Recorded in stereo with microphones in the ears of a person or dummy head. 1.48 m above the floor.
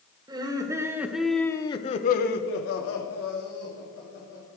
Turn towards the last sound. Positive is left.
turn(degrees=70)  # may be behind; listen again after turning